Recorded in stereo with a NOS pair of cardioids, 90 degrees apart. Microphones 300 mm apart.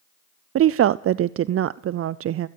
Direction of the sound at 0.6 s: 50° right.